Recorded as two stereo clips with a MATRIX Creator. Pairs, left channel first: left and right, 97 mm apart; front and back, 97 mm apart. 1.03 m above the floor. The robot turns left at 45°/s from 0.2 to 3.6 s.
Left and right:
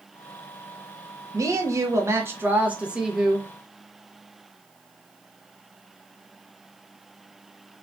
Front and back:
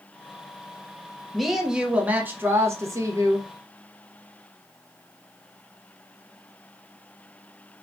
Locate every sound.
1.3 s a woman speaking: 90° right, 0.7 m; by 3.5 s 175° left, 0.7 m